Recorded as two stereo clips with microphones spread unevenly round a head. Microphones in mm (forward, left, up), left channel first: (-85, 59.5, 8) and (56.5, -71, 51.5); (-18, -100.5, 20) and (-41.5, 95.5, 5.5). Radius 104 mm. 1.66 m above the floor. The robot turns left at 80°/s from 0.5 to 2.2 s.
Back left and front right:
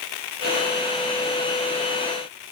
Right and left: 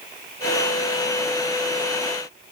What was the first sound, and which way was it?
Only background noise.